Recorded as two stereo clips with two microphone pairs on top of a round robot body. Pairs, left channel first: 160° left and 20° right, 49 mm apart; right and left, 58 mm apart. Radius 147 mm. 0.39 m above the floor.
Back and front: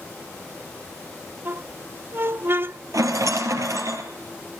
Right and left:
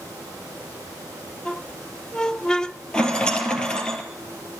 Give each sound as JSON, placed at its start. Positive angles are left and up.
{"t": 1.4, "sound": "a squeak", "azimuth_deg": -5, "distance_m": 0.8}
{"t": 2.9, "sound": "a rattle", "azimuth_deg": -15, "distance_m": 3.5}